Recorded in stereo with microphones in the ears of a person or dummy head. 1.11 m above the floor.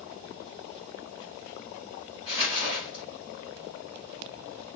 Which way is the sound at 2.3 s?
25° right (ahead or behind).